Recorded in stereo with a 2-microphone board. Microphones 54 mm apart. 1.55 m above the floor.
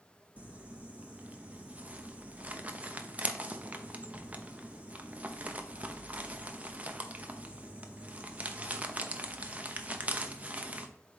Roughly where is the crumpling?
Right.